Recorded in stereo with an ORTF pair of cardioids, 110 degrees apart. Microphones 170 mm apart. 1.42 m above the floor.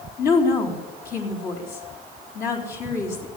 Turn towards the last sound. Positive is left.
turn(degrees=60)